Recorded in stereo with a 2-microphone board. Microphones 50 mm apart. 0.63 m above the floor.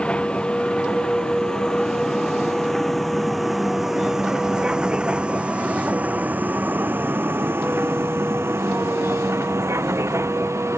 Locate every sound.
0.0 s a vehicle: 20° left (ahead or behind); by 10.8 s 80° right